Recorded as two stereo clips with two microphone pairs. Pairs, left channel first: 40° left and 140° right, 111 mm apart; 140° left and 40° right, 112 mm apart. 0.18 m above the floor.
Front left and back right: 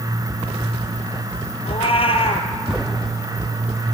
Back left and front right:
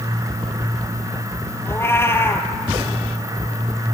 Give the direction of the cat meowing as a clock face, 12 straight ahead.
10 o'clock.